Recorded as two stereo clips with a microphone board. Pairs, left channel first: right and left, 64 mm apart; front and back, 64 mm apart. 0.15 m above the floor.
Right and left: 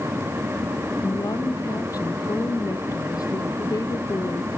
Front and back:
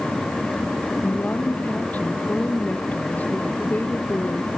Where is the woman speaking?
65° right.